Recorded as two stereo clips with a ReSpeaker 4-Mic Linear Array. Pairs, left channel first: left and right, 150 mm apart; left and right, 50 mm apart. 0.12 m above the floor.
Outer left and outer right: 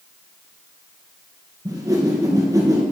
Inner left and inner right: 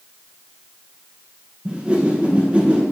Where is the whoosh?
25° right (ahead or behind), 2 m.